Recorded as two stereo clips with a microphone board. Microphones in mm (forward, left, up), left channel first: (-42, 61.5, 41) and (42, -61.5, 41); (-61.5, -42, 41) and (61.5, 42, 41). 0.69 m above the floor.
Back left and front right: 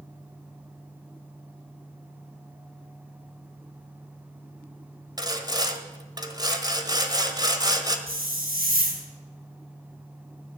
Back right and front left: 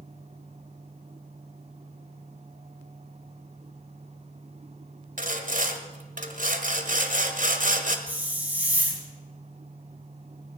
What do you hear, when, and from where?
5.2 s sawing: 10° left, 1.4 m
8.1 s a hiss: 45° right, 3.5 m